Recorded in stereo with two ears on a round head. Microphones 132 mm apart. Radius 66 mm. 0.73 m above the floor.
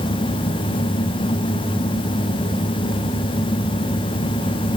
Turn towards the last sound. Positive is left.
No sound to turn to.